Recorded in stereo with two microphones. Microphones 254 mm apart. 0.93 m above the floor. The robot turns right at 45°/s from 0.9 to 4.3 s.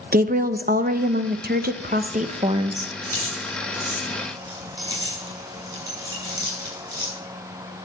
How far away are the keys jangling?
About 7 m.